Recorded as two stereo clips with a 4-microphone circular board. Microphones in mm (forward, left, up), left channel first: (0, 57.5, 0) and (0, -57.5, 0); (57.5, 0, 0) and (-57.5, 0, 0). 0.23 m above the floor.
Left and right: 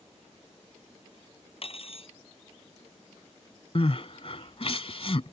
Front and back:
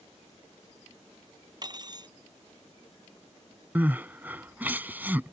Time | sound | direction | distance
1.6 | cutlery clinking | 125° left | ?
3.8 | crying | 105° left | ?